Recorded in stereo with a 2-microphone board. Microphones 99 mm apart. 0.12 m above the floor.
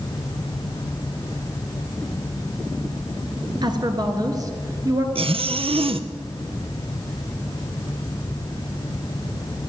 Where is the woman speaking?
45° right (ahead or behind), 1.5 m; by 5.0 s 30° right (ahead or behind), 1.8 m.